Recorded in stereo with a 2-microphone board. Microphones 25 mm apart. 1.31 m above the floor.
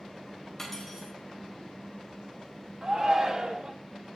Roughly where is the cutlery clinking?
Centre.